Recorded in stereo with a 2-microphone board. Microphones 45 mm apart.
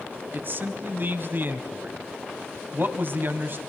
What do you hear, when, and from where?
0.3 s a man speaking: 50° right (ahead or behind), 1.7 m